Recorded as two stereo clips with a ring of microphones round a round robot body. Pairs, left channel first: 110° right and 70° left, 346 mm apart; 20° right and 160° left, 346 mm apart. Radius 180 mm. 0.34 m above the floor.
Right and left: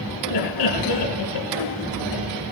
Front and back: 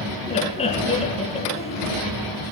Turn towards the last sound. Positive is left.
turn(degrees=-95)